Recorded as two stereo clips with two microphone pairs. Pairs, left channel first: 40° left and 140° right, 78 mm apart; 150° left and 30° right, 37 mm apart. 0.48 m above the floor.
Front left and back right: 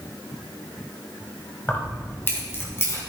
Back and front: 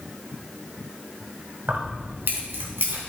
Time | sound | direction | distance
1.7 | keys jangling | 25° right | 1.7 m